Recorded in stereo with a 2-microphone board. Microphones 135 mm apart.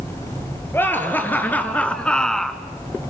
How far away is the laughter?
About 3 m.